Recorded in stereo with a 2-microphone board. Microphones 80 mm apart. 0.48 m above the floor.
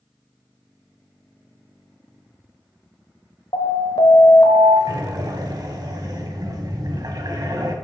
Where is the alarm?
70° left (ahead or behind), 1.0 m.